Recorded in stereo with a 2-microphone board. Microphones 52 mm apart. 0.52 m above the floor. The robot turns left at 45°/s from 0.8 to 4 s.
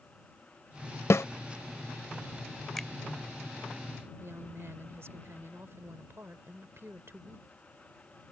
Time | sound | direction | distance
1.1 | a snare drum | 60° left (ahead or behind) | ?
2.8 | a finger snap | 10° left (ahead or behind) | ?
4.2 | a woman speaking | 55° right (ahead or behind) | ?